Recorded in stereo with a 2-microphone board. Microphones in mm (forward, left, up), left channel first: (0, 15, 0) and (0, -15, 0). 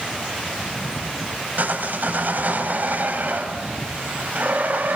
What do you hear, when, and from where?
1.6 s sawing: 65° right (ahead or behind), 3.5 m